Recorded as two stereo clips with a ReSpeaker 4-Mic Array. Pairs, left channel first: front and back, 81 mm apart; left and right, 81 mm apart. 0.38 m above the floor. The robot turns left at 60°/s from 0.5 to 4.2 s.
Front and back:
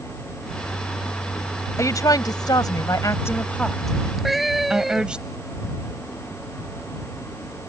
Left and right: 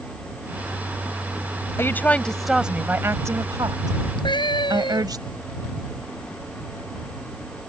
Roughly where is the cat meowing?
Left.